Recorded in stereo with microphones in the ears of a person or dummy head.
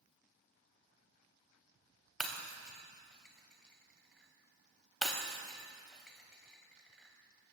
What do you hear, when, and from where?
2.2 s breaking glass: centre (ahead or behind), 3.5 m